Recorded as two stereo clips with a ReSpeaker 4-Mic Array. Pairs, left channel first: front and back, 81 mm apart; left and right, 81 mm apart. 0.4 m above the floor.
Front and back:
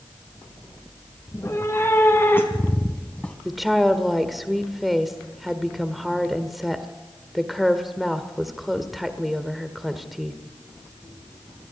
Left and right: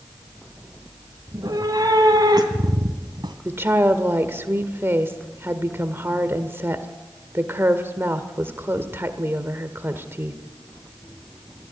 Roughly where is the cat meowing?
Ahead right.